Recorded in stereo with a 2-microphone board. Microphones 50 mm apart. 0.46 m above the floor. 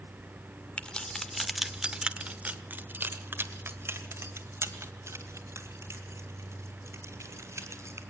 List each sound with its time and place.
0.8 s keys jangling: 25° left (ahead or behind), 1.0 m; by 8.0 s 75° right (ahead or behind), 3.5 m